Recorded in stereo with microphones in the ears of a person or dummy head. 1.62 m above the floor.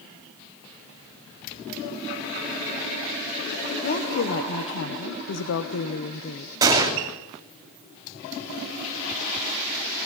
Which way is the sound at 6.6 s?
15° right (ahead or behind).